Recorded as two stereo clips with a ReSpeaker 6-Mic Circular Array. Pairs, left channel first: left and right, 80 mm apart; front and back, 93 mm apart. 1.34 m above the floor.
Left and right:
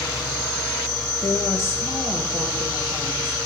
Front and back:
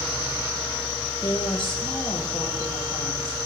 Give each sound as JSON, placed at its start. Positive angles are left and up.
{"t": 1.2, "sound": "a woman speaking", "azimuth_deg": 35, "distance_m": 1.2}